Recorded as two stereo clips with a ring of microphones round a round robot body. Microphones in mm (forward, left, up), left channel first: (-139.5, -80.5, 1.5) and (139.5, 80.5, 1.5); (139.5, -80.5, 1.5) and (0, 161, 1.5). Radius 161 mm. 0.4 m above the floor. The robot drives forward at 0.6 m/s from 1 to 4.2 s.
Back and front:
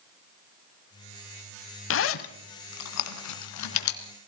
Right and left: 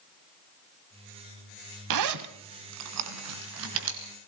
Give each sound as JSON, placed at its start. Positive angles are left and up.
{"t": 1.9, "sound": "a zipper", "azimuth_deg": 155, "distance_m": 0.9}